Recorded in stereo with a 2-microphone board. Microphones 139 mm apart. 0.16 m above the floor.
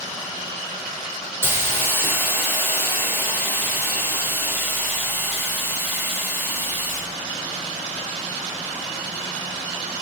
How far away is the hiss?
About 1.3 m.